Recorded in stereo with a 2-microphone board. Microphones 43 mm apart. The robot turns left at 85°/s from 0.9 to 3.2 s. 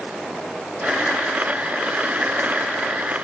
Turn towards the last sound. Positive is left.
No sound to turn to.